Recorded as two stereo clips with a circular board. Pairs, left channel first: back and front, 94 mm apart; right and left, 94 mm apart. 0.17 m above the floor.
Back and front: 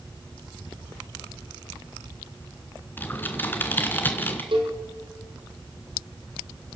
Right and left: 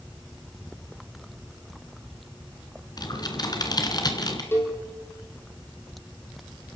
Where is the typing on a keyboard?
115° right, 2.5 m.